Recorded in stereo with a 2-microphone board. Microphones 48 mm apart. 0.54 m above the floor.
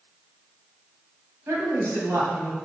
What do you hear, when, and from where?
1.5 s a woman speaking: 70° right (ahead or behind), 2.5 m